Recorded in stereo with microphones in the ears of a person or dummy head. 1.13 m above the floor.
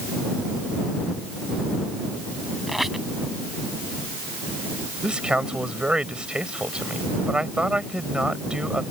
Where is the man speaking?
5° right (ahead or behind).